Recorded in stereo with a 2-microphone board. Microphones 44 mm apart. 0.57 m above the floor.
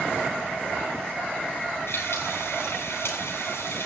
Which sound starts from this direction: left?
Frying, at 1.9 s.